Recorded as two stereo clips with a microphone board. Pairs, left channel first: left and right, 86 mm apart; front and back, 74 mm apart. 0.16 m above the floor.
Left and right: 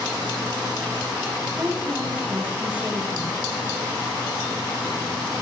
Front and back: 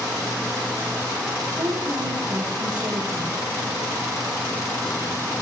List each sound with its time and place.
1.5 s a woman speaking: 170° right, 9 m; by 3.4 s 160° right, 8 m